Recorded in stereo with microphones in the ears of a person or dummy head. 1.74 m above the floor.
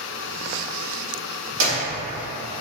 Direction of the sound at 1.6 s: 60° right (ahead or behind).